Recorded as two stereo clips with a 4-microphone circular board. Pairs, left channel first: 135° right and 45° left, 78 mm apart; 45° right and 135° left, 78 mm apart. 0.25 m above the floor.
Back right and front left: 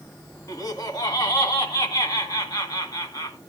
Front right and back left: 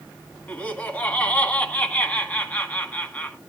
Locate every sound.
0.5 s laughter: 110° right, 2 m